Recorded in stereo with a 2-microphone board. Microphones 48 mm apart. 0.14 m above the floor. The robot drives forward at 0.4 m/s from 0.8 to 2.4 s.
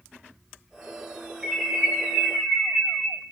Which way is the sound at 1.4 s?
5° right (ahead or behind).